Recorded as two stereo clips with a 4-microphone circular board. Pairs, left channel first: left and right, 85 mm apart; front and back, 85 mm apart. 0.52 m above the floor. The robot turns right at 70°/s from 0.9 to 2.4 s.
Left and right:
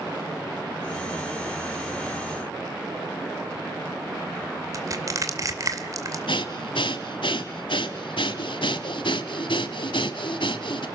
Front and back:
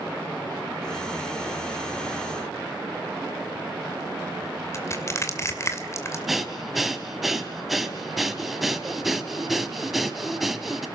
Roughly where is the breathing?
Left.